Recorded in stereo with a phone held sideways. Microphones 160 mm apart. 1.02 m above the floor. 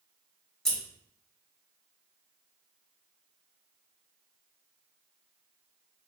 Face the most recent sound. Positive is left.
turn(degrees=5)  # may be behind; listen again after turning